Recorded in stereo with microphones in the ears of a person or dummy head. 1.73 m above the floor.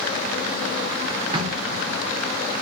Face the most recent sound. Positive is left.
turn(degrees=-30)  # may be behind; listen again after turning